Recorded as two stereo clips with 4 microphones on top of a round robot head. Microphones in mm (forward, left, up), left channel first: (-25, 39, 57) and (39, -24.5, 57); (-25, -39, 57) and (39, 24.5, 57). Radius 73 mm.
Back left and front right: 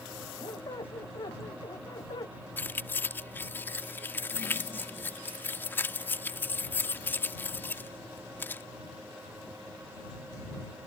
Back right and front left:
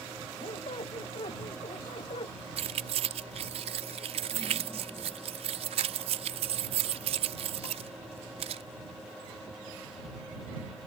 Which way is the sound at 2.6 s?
65° left.